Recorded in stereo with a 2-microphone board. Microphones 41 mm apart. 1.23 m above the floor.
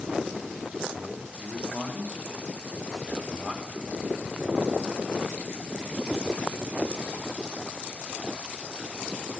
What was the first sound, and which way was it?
A man speaking, 30° left (ahead or behind).